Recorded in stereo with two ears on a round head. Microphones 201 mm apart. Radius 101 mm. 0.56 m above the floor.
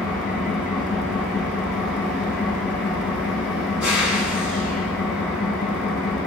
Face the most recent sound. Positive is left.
turn(degrees=-5)  # may be behind; listen again after turning